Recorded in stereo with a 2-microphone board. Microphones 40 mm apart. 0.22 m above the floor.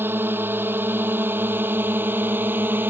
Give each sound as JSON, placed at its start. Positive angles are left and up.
{"t": 0.0, "sound": "a drone", "side_deg": -65}